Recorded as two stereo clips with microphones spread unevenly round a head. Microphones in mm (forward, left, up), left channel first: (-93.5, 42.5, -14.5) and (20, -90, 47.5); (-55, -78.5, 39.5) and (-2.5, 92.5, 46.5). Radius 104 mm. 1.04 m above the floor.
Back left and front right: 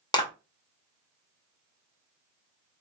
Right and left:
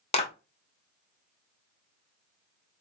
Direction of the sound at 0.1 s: 165° right.